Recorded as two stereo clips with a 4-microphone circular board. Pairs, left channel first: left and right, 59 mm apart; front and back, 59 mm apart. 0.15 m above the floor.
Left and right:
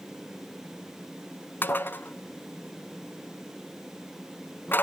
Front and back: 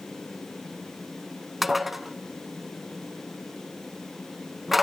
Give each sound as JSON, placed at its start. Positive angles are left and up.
{"t": 1.6, "sound": "dishes clattering", "azimuth_deg": 95, "distance_m": 0.8}